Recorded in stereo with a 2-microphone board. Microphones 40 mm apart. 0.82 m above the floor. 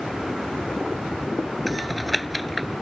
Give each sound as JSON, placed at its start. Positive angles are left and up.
{"t": 1.7, "sound": "typing on a keyboard", "side_deg": 0}